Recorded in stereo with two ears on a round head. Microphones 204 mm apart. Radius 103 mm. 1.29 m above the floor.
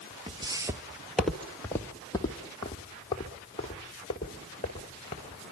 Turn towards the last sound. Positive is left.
turn(degrees=30)  # may be behind; listen again after turning